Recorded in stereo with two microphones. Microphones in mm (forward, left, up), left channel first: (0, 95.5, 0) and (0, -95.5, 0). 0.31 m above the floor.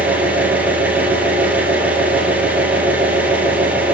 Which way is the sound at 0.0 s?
10° right (ahead or behind).